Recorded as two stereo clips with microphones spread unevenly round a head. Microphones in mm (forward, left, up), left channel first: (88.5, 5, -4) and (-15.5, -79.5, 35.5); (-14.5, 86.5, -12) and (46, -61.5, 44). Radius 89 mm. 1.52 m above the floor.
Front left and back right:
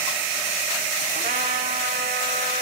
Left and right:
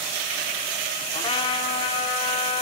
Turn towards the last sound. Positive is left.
turn(degrees=180)